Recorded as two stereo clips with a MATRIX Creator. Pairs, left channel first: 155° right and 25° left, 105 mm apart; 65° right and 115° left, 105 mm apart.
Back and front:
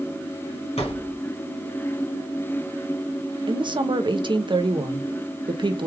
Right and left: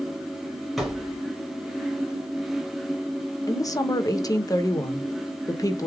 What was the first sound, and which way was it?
A thud, 155° right.